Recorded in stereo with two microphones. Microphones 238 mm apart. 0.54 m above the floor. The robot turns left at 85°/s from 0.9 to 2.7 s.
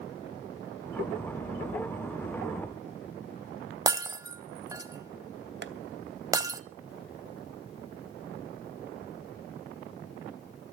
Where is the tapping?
45° right (ahead or behind), 1.0 m.